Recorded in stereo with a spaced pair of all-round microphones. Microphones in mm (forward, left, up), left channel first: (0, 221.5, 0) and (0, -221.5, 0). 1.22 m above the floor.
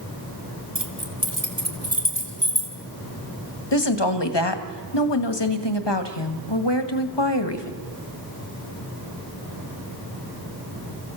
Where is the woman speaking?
70° left (ahead or behind), 1.7 m.